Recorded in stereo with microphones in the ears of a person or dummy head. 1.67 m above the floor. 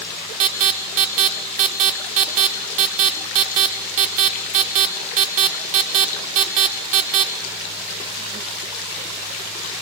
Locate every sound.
0.4 s an alarm: 40° right (ahead or behind), 0.8 m